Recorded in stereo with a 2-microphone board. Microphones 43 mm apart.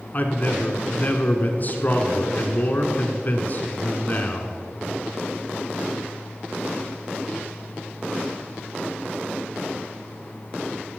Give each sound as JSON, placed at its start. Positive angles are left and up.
{"t": 0.1, "sound": "a man speaking", "side_deg": 40, "distance_m": 1.3}